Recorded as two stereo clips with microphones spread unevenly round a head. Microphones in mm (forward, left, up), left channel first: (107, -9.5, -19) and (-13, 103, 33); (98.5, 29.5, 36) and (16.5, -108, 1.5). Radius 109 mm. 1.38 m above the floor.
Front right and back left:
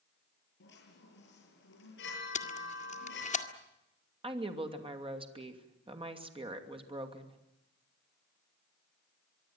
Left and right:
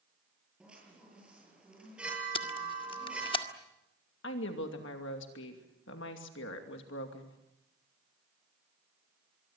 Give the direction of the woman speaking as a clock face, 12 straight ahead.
9 o'clock.